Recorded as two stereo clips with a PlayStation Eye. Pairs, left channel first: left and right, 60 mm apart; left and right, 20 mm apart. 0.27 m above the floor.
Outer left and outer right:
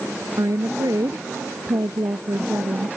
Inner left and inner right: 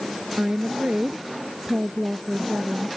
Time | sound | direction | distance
0.4 | a woman speaking | 70° right (ahead or behind) | ?